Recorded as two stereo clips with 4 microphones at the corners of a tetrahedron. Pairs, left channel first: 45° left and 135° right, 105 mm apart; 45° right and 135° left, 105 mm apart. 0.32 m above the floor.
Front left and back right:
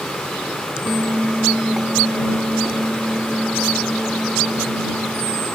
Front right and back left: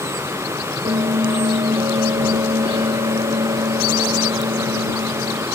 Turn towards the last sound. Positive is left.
turn(degrees=140)